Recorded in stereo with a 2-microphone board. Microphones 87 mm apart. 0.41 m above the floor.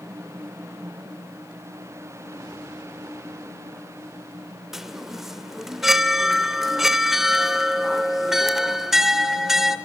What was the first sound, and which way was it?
A chime, 5° right (ahead or behind).